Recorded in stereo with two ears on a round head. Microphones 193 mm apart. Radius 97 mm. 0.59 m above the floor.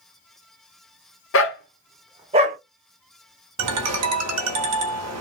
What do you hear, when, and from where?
1.3 s a dog barking: 70° left (ahead or behind), 0.9 m; by 2.6 s 40° right (ahead or behind), 1.1 m
3.6 s a ringtone: 80° right, 0.8 m